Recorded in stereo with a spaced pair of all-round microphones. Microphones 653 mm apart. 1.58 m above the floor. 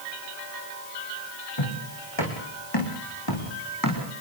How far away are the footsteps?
About 6 m.